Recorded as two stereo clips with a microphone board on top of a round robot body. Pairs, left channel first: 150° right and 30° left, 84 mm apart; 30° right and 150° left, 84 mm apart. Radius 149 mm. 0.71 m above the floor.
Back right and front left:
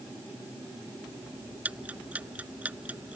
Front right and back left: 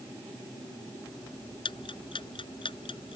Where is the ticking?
45° right.